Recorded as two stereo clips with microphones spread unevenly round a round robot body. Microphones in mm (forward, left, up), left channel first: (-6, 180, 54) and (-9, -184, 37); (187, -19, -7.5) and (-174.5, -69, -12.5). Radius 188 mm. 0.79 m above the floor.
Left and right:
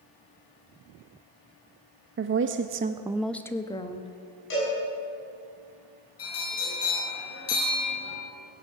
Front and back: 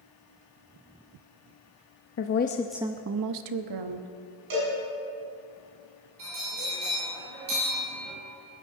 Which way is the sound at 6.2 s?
140° left.